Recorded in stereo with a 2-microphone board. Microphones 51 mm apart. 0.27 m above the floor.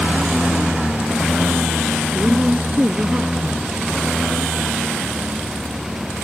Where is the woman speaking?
25° right (ahead or behind).